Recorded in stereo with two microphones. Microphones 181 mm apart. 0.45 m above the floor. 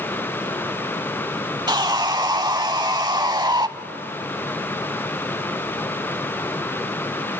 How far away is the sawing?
About 0.5 m.